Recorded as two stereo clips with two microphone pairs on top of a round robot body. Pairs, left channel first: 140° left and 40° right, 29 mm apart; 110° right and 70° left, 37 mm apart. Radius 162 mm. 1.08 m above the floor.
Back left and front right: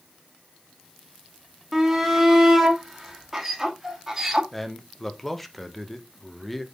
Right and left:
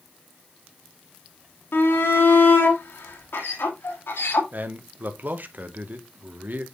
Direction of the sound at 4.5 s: 50° left.